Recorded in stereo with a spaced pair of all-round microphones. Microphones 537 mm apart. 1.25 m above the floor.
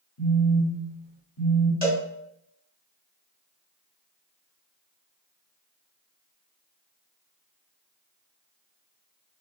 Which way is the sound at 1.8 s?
15° left (ahead or behind).